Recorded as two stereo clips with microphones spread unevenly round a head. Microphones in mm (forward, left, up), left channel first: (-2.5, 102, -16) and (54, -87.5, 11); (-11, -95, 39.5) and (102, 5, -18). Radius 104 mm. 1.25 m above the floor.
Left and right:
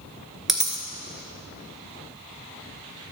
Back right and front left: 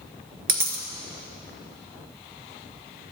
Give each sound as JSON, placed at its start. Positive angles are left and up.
{"t": 0.5, "sound": "a dropped coin", "azimuth_deg": 10, "distance_m": 2.0}